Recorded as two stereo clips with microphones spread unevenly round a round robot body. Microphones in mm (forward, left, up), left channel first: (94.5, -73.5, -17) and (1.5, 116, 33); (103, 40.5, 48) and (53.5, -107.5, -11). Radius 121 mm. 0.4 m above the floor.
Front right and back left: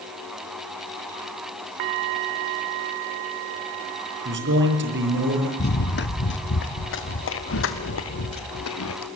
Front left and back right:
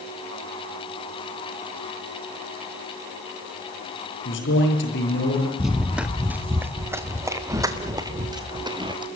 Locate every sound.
4.2 s a man speaking: 80° left, 7.5 m
5.6 s running footsteps: 20° right, 2.5 m; by 9.1 s 45° right, 4 m